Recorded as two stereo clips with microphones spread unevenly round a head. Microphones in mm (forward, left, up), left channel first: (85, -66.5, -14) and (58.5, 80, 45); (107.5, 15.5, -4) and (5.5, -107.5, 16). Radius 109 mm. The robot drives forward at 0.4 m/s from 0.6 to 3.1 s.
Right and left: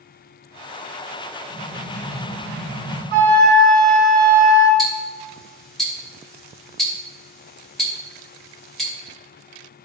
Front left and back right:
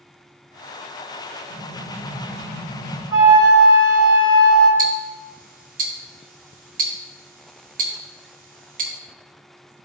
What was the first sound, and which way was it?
An explosion, 165° right.